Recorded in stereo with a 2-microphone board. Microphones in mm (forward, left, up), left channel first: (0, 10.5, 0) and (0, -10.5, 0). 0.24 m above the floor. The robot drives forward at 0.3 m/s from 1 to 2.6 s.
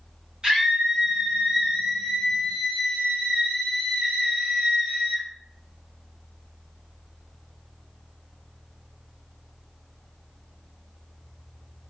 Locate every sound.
0.4 s a scream: 45° right (ahead or behind), 1.8 m